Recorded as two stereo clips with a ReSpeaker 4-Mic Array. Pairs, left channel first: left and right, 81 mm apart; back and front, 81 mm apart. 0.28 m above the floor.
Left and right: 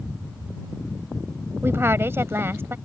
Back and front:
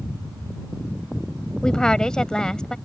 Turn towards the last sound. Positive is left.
turn(degrees=-105)